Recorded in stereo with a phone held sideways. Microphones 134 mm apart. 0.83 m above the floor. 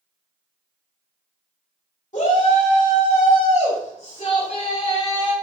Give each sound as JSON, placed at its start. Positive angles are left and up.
{"t": 2.1, "sound": "a shout", "side_deg": 70, "distance_m": 3.0}